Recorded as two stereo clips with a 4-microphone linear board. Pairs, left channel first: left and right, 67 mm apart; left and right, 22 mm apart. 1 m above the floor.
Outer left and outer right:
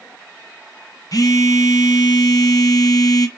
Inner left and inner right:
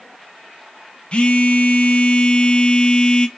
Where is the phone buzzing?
60° left (ahead or behind), 0.5 m.